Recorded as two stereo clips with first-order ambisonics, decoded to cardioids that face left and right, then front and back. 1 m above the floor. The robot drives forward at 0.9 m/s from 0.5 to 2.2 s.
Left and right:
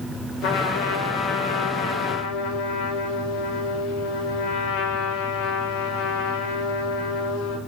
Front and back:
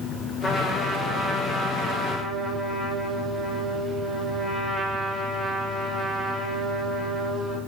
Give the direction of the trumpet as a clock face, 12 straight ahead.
9 o'clock.